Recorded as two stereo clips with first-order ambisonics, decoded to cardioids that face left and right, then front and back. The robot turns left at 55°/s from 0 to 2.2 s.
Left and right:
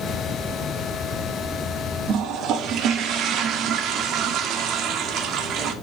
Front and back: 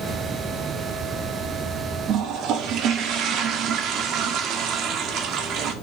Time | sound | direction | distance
2.1 | a toilet flushing | 130° right | 0.8 m